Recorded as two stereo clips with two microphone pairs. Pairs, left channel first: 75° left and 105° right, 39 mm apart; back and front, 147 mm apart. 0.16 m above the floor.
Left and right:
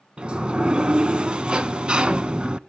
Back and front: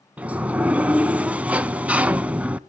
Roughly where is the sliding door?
Right.